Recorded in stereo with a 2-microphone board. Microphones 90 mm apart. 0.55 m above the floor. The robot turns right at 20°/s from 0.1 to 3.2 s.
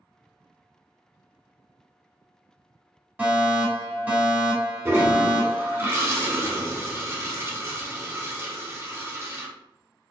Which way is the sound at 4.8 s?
30° right (ahead or behind).